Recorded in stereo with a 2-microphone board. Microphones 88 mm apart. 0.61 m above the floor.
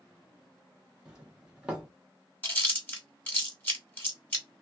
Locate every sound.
1.1 s a doorbell: 10° right (ahead or behind), 1.1 m
2.4 s chewing: 20° left (ahead or behind), 1.6 m